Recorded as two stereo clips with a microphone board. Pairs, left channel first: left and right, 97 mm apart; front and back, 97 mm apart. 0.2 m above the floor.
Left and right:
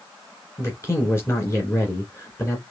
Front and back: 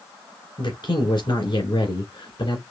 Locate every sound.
0.6 s a man speaking: 30° left, 2.5 m